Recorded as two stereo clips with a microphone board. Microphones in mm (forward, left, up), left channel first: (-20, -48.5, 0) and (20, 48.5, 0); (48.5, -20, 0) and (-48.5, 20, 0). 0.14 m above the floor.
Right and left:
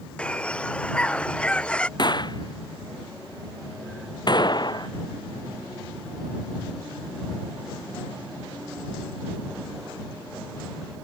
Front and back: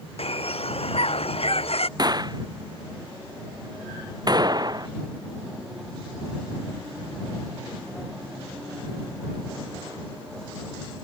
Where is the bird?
35° right.